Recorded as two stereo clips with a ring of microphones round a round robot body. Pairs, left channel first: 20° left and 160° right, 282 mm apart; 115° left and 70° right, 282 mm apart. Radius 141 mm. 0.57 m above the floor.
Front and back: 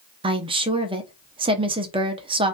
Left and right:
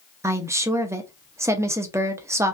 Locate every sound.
0.2 s a woman speaking: 130° right, 0.6 m